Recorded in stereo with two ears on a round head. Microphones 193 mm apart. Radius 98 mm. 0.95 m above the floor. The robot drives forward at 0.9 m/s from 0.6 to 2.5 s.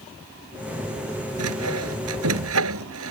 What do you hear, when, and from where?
1.4 s sawing: 85° right; by 3.1 s 80° right